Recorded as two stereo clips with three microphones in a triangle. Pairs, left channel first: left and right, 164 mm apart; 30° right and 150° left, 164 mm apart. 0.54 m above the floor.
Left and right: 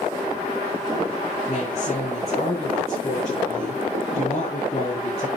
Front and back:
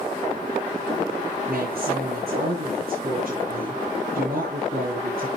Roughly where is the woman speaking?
Behind left.